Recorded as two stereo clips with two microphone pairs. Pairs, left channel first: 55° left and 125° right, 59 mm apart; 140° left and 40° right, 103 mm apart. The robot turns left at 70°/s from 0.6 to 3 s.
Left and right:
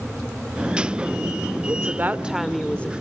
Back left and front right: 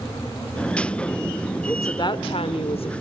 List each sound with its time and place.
1.7 s a woman speaking: 155° right, 1.7 m; by 2.9 s 115° left, 1.7 m